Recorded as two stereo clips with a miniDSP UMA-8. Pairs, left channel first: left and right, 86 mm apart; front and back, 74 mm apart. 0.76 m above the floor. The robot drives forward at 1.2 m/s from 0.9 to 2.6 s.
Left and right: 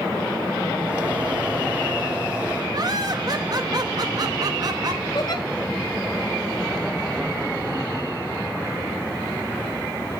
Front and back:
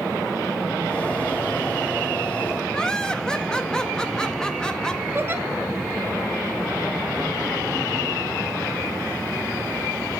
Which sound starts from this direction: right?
Laughter, at 2.7 s.